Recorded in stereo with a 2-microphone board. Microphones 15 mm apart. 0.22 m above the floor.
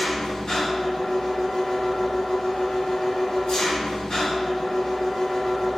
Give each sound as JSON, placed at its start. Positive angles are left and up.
{"t": 0.0, "sound": "an engine running", "side_deg": 55, "distance_m": 1.4}